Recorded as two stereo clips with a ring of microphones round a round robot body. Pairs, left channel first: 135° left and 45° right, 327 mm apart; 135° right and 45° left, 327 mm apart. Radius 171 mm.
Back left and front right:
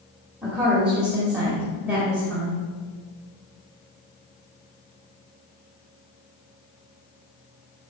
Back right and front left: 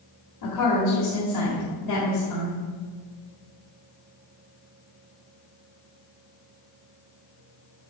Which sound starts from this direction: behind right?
A woman speaking, at 0.4 s.